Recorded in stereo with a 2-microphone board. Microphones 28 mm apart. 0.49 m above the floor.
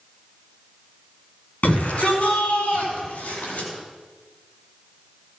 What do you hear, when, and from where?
1.6 s a shout: 65° left (ahead or behind), 5.5 m; by 3.7 s 75° left (ahead or behind), 4.5 m